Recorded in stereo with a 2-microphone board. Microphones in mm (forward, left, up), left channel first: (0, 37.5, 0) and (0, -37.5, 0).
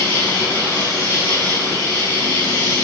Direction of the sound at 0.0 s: 35° left (ahead or behind).